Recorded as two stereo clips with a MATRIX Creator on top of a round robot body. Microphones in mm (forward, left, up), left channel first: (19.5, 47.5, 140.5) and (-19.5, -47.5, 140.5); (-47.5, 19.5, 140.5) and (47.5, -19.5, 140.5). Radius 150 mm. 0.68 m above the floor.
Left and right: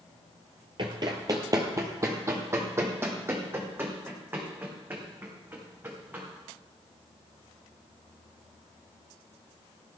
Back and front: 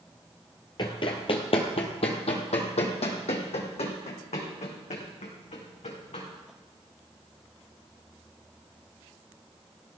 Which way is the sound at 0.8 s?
155° right.